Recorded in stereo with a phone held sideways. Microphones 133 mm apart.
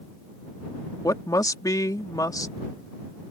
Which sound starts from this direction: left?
A woman speaking, at 1.0 s.